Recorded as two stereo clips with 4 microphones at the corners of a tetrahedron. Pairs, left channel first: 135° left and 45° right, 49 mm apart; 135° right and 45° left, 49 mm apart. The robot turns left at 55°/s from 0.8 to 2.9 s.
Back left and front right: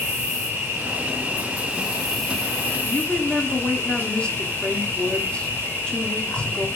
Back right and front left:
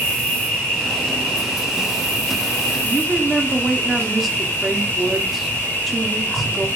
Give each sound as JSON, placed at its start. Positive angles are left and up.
{"t": 0.0, "sound": "an insect", "azimuth_deg": -60, "distance_m": 2.5}
{"t": 2.8, "sound": "a woman speaking", "azimuth_deg": 120, "distance_m": 0.7}